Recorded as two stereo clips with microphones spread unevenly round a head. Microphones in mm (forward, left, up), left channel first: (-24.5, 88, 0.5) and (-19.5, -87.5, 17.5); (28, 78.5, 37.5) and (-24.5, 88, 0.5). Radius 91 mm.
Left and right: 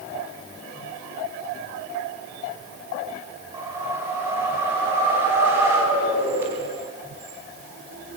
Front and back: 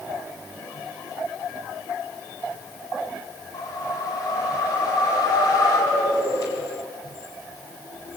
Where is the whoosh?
10° right, 5 m.